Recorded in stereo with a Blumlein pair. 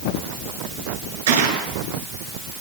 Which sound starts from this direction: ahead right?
A gunshot, at 1.3 s.